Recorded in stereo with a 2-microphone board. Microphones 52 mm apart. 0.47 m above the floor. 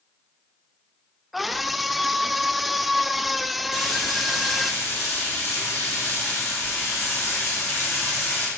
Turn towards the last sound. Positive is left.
turn(degrees=85)